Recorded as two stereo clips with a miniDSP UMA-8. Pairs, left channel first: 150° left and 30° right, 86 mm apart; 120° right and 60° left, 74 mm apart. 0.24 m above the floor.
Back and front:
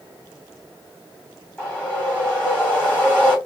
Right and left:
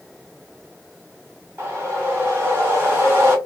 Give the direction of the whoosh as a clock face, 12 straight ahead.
9 o'clock.